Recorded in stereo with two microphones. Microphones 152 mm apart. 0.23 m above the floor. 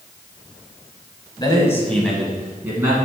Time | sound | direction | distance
1.4 | a man speaking | 30° left (ahead or behind) | 1.3 m